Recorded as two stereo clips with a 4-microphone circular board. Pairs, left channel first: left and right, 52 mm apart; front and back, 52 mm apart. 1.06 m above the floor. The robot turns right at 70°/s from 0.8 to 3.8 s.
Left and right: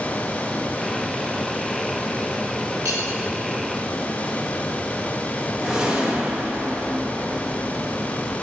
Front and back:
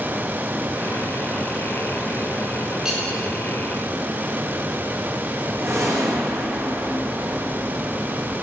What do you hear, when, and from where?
2.9 s cutlery clinking: 100° right, 1.6 m; by 3.0 s 85° right, 1.6 m
5.6 s a whoosh: 165° right, 1.1 m